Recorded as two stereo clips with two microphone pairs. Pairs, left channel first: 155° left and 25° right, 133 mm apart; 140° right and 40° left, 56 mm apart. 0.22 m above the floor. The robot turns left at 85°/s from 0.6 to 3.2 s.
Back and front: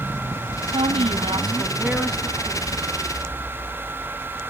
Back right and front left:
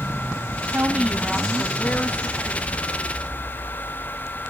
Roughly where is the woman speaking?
Ahead.